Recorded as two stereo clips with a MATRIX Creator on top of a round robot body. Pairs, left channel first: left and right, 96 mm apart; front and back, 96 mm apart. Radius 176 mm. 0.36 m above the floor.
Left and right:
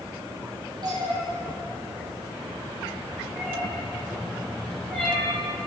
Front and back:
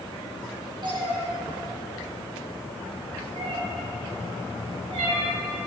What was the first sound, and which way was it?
A cat meowing, 140° right.